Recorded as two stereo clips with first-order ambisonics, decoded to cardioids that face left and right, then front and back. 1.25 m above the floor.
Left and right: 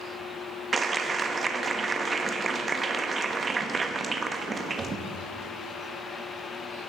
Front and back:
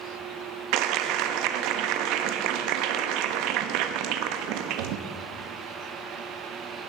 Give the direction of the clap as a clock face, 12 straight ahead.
5 o'clock.